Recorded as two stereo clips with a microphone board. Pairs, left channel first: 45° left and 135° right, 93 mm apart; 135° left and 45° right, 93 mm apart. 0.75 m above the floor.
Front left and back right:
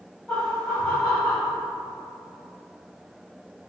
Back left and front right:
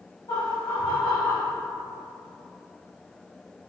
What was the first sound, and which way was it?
Laughter, 120° left.